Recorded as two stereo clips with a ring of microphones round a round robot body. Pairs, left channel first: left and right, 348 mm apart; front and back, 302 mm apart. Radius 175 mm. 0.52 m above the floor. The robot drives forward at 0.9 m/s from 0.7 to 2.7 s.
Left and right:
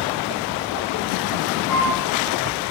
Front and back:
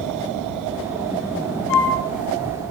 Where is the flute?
5° left, 7 m.